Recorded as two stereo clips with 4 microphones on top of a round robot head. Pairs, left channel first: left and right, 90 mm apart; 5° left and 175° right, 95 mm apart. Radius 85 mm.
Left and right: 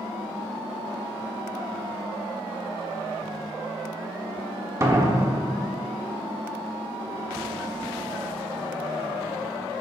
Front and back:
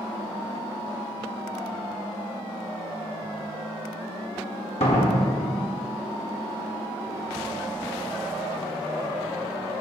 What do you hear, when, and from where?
4.8 s a door slam: 35° right, 1.6 m